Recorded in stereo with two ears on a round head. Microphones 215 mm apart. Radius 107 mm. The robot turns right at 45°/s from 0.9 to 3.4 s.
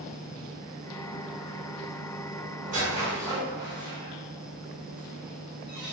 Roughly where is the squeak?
Right.